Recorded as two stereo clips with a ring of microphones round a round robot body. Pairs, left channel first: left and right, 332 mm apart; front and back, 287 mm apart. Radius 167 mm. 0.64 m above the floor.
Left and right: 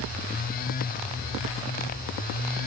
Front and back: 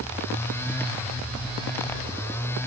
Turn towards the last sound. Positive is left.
No sound to turn to.